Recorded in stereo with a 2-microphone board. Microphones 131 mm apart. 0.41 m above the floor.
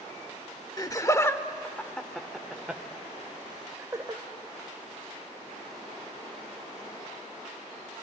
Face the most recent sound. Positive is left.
turn(degrees=-25)  # may be behind; listen again after turning